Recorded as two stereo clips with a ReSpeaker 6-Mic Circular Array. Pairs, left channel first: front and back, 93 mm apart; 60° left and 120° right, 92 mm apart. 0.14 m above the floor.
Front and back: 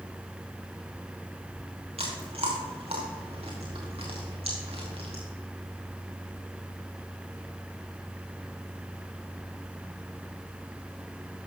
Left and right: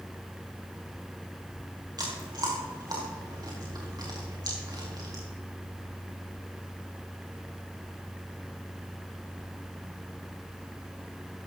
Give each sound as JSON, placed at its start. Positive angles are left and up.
{"t": 2.0, "sound": "chewing", "azimuth_deg": -170, "distance_m": 3.5}